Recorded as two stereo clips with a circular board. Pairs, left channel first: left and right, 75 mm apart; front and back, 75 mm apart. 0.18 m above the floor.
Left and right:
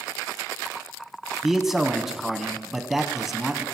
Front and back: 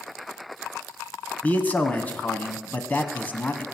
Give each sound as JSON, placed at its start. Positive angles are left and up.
{"t": 1.4, "sound": "a man speaking", "azimuth_deg": -15, "distance_m": 1.1}